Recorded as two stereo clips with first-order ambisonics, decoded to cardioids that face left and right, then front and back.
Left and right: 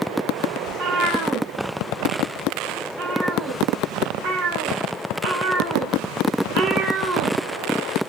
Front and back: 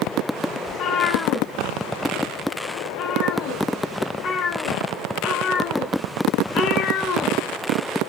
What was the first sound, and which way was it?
A cat meowing, 50° right.